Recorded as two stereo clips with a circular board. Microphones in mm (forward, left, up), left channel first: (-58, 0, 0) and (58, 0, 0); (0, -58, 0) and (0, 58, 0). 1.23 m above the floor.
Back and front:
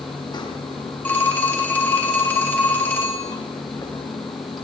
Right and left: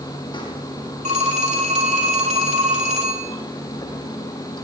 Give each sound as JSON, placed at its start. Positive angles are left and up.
{"t": 0.0, "sound": "running water", "azimuth_deg": -135, "distance_m": 5.5}
{"t": 1.1, "sound": "a phone ringing", "azimuth_deg": 105, "distance_m": 3.5}